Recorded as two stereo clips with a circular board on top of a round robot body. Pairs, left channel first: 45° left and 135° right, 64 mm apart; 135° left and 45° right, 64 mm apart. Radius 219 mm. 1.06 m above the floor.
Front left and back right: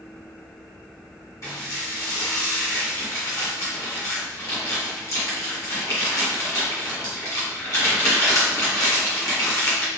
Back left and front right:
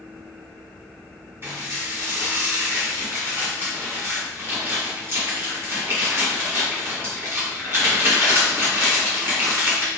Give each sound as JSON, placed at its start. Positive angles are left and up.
{"t": 1.4, "sound": "dishes clattering", "azimuth_deg": 5, "distance_m": 1.7}